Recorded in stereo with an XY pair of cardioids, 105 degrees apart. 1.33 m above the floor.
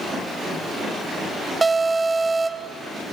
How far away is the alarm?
About 1.9 m.